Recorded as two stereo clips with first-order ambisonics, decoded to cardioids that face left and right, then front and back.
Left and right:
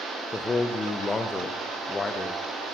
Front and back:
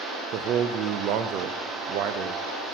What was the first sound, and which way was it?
A man speaking, 165° left.